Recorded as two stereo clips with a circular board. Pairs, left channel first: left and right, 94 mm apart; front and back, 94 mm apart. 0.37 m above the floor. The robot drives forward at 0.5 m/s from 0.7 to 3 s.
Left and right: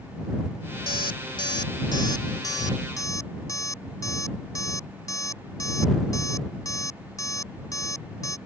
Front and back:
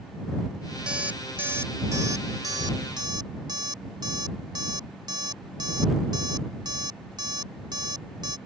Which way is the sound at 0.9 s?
100° left.